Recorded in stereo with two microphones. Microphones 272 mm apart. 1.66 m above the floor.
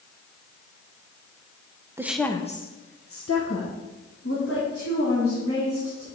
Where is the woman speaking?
10° right (ahead or behind), 0.8 m; by 6.1 s 55° left (ahead or behind), 3.5 m.